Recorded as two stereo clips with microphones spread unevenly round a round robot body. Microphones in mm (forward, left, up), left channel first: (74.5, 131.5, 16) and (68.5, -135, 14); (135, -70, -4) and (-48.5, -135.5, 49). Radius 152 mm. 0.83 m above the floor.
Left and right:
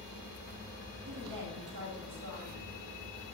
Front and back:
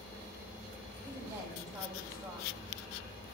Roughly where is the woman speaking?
Right.